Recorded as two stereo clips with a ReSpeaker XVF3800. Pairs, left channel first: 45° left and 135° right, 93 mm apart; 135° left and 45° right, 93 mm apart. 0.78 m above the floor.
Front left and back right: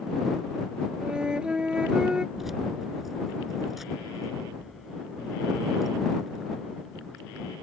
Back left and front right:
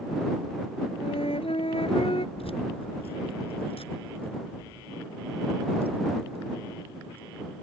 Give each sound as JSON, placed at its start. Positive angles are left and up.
{"t": 1.0, "sound": "a flute", "azimuth_deg": 145}
{"t": 2.4, "sound": "keys jangling", "azimuth_deg": 135}